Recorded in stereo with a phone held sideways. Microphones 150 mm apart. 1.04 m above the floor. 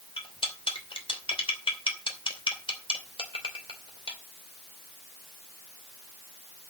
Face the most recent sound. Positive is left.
turn(degrees=35)  # may be behind; listen again after turning